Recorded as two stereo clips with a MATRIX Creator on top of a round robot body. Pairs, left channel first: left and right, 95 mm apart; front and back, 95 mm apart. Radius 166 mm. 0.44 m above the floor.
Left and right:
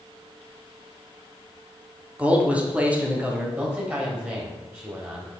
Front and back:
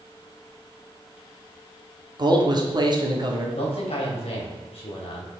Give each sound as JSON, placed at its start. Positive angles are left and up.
{"t": 2.2, "sound": "a man speaking", "azimuth_deg": -160, "distance_m": 1.7}
{"t": 3.6, "sound": "a man speaking", "azimuth_deg": -15, "distance_m": 3.0}